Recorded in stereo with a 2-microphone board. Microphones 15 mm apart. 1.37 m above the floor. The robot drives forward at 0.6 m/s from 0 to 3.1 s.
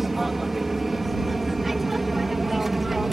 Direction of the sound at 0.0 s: 15° right (ahead or behind).